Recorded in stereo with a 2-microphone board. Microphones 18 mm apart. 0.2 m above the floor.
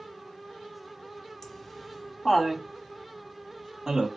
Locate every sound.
1.4 s laughter: 15° left (ahead or behind), 1.6 m; by 4.1 s 35° right (ahead or behind), 1.6 m